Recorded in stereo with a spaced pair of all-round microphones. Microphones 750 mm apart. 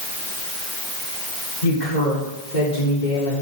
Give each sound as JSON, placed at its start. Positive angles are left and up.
{"t": 1.6, "sound": "a woman speaking", "side_deg": 70, "distance_m": 4.0}